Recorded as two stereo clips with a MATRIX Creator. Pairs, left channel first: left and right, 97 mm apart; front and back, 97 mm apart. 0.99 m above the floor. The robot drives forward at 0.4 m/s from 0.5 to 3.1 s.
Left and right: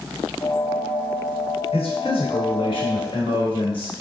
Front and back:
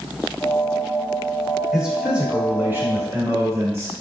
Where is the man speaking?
95° left, 1.2 m; by 3.9 s 115° left, 1.4 m.